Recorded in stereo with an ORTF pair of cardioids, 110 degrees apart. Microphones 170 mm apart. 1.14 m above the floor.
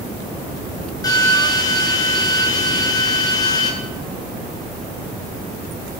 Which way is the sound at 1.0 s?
20° left.